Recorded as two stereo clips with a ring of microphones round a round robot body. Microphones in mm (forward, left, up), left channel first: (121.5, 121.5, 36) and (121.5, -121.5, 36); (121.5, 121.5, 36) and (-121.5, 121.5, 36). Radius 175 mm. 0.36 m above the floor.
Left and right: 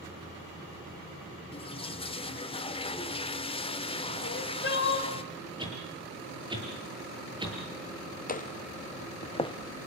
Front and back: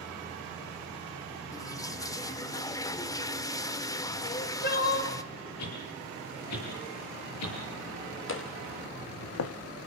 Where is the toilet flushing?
60° left, 1.5 m.